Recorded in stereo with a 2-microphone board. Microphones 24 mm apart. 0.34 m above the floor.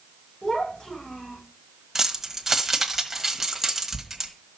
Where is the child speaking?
50° left (ahead or behind), 9 m.